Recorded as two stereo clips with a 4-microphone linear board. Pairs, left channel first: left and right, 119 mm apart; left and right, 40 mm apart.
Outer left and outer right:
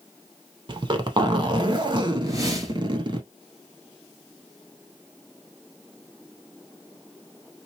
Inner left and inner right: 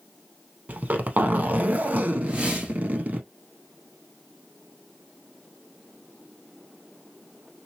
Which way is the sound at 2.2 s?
30° right (ahead or behind).